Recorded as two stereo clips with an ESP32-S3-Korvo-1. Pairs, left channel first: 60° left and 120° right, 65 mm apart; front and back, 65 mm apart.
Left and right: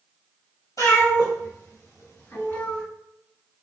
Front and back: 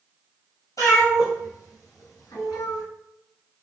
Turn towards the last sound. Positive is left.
turn(degrees=-5)